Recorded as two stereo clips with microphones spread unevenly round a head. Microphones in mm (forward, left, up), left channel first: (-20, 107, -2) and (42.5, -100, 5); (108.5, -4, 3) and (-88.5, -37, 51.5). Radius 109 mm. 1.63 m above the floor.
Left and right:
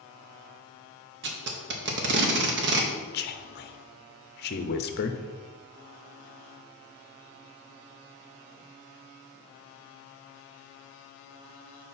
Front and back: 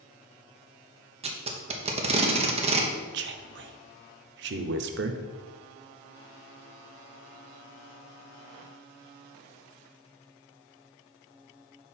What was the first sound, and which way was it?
Tape being pulled, 115° right.